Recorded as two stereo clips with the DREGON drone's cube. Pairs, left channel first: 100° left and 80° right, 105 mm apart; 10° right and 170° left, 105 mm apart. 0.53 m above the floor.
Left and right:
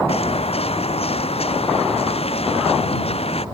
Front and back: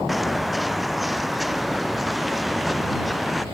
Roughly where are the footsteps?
Left.